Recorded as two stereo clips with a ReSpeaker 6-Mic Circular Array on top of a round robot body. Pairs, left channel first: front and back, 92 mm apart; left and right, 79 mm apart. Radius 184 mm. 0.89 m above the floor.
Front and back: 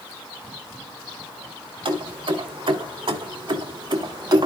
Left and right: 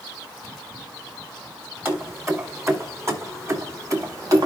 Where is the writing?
No writing in this recording.